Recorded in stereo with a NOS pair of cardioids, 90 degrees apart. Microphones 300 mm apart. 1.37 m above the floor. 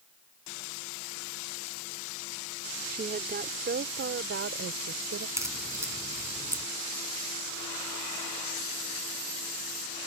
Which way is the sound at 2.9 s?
30° right.